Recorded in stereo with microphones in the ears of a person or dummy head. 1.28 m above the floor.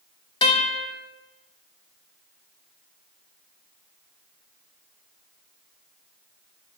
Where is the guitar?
20° left (ahead or behind), 0.7 m.